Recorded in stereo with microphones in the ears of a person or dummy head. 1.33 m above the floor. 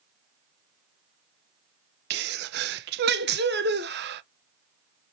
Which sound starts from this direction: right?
A sneeze, at 2.1 s.